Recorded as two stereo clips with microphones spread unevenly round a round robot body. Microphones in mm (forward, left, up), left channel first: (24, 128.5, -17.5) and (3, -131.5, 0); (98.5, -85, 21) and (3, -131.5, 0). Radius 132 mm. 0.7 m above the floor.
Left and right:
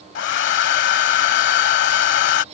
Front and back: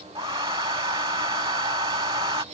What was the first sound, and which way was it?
A hair dryer, 135° left.